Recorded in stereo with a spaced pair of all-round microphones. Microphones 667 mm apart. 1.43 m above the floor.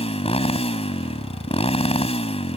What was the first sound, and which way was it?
A motorcycle, 10° left (ahead or behind).